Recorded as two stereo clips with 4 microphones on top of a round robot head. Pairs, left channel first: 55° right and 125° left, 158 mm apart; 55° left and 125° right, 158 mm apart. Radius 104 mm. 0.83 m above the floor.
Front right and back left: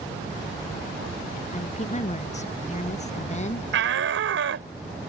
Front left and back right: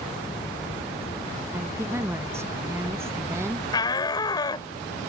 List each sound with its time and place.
1.5 s a woman speaking: 55° right
3.7 s a shout: 125° left